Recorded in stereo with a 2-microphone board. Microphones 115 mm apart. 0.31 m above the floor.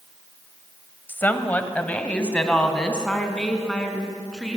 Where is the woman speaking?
15° left (ahead or behind), 1.5 m; by 4.6 s 5° left (ahead or behind), 4 m.